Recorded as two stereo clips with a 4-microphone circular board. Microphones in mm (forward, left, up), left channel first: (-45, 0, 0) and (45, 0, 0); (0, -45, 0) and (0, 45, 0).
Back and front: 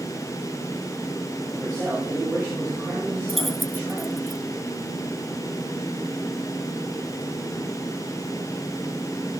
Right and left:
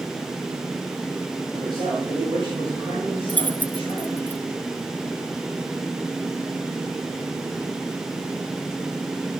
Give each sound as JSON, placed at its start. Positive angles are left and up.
{"t": 1.5, "sound": "a man speaking", "azimuth_deg": 75, "distance_m": 7.5}
{"t": 3.3, "sound": "keys jangling", "azimuth_deg": -85, "distance_m": 0.7}